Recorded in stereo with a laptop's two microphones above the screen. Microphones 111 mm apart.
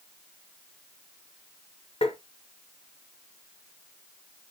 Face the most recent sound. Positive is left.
turn(degrees=60)  # may be behind; listen again after turning